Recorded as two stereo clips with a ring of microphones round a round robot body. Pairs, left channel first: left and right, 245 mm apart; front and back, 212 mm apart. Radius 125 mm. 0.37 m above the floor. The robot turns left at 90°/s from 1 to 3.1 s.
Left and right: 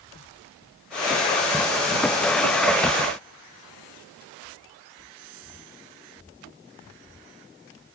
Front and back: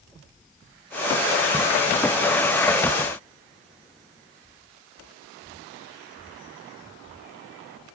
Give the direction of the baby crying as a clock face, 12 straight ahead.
I don't hear a baby crying.